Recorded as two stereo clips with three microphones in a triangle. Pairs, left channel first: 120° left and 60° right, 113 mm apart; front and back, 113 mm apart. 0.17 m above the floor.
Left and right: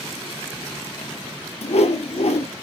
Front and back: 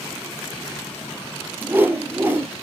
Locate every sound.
1.6 s a whoosh: 110° left, 1.1 m